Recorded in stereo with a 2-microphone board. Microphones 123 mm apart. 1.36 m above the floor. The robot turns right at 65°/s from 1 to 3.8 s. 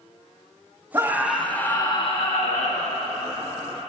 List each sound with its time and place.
0.9 s a scream: 25° right, 1.7 m; by 3.0 s 105° left, 1.7 m